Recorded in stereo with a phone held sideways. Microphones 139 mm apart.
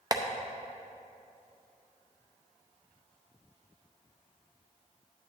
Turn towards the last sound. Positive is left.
turn(degrees=-30)  # may be behind; listen again after turning